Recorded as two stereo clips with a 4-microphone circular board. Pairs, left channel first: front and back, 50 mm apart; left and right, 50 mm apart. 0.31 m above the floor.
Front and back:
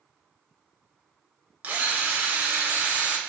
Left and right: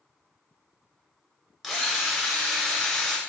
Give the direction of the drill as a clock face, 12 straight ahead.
6 o'clock.